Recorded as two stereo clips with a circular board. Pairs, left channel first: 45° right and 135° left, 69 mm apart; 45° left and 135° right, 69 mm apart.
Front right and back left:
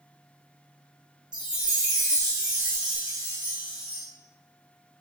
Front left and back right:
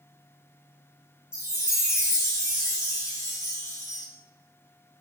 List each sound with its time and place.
1.3 s a chime: 60° left, 1.5 m